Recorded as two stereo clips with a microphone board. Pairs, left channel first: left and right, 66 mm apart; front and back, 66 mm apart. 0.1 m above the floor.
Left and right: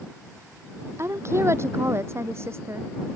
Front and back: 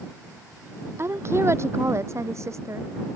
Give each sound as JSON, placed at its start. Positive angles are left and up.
{"t": 1.0, "sound": "a woman speaking", "azimuth_deg": -135}